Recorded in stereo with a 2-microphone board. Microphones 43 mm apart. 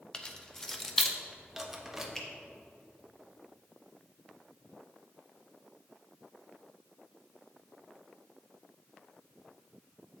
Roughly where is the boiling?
I don't hear boiling.